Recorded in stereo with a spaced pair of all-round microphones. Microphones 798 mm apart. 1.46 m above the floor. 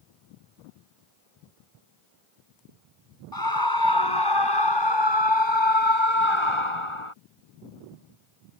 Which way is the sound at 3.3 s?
25° left (ahead or behind).